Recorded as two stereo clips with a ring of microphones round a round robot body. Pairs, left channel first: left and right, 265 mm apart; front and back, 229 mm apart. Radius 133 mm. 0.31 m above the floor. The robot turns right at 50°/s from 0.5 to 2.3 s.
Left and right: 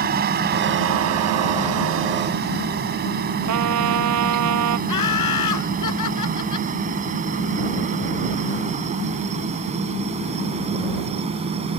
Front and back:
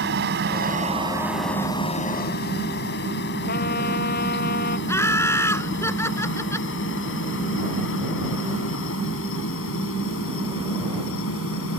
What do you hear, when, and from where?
0.0 s a helicopter: 140° right; by 11.8 s 25° right
3.5 s a trumpet: 60° right
4.9 s laughter: 80° left